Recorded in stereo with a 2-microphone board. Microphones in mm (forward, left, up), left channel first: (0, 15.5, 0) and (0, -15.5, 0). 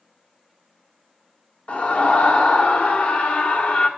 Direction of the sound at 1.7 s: 40° left (ahead or behind).